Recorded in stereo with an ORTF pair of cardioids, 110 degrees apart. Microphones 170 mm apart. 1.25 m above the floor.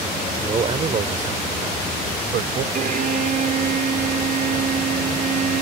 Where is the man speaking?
35° right; by 2.6 s 60° right.